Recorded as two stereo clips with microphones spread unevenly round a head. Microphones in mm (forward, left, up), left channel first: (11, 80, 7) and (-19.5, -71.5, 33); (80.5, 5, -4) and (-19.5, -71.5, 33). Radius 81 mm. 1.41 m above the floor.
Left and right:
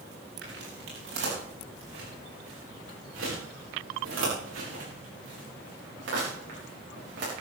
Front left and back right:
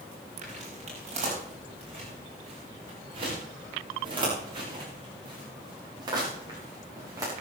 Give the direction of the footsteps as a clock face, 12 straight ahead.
4 o'clock.